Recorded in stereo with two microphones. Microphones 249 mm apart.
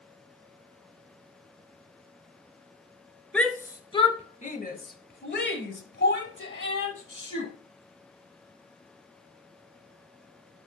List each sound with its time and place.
3.3 s a shout: 5° left (ahead or behind), 1.2 m; by 7.5 s 60° left (ahead or behind), 3 m